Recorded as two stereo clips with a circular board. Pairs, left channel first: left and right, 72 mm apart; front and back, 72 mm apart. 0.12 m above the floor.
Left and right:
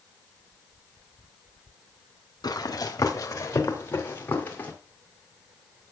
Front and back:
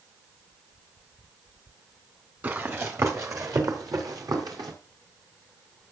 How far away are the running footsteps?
About 2 m.